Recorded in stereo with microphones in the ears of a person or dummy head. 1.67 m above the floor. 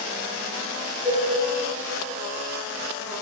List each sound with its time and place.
1.1 s a cowbell: 5° right (ahead or behind), 2 m